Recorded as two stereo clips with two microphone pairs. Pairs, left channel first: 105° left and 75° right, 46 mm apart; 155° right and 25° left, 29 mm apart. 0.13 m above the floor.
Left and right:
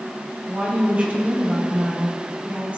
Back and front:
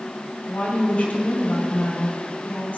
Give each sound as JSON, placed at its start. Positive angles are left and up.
{"t": 0.5, "sound": "a woman speaking", "azimuth_deg": -135, "distance_m": 3.0}